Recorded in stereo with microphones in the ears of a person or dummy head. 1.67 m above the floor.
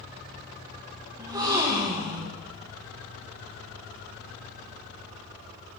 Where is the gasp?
20° right (ahead or behind), 1.3 m.